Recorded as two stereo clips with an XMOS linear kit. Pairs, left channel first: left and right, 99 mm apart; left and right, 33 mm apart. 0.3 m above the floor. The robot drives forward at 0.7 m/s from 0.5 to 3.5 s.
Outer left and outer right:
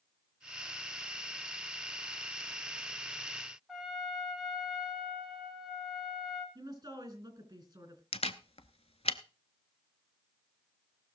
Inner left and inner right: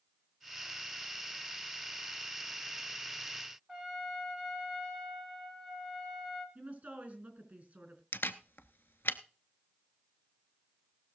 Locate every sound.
3.7 s a trumpet: 5° right (ahead or behind), 2.5 m
6.5 s a woman speaking: 35° right (ahead or behind), 3.5 m
8.1 s a camera shutter: 85° left, 0.7 m